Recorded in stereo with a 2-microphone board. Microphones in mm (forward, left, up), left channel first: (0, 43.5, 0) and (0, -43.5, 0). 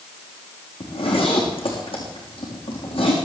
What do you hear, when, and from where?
0.8 s a zipper: 85° left, 5.5 m